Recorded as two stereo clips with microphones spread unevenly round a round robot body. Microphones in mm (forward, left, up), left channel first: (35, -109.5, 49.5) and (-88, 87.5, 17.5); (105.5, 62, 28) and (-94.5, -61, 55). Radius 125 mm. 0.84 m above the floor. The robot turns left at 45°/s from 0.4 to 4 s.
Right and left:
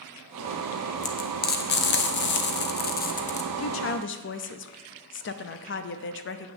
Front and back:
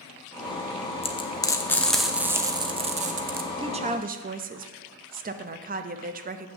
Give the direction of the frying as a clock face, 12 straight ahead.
12 o'clock.